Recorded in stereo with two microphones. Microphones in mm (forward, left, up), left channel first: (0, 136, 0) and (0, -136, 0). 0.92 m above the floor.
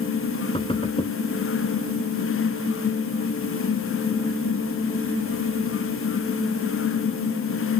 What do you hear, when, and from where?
0.5 s knocking: 20° left (ahead or behind)